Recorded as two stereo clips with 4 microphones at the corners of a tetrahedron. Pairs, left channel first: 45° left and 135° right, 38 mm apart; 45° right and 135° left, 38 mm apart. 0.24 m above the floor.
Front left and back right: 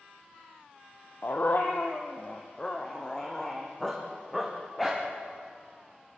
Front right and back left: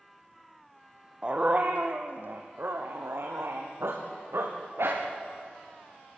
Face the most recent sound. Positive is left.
turn(degrees=140)